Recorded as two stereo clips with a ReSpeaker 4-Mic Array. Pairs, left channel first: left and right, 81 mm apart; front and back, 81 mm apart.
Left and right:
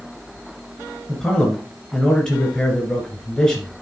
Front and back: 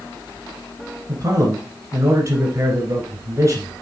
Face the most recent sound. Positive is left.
turn(degrees=165)